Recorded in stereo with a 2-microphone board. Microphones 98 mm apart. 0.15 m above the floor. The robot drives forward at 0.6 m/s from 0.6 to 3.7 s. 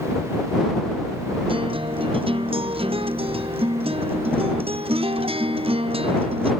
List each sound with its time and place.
1.5 s a guitar: 65° right (ahead or behind); by 6.5 s 75° right (ahead or behind)